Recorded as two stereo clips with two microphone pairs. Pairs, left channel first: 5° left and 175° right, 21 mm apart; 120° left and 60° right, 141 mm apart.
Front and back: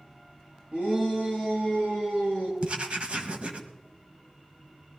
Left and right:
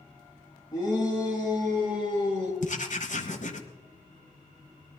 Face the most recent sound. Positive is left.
turn(degrees=150)